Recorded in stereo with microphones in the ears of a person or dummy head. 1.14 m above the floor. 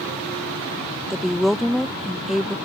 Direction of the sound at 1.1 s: Centre (ahead or behind).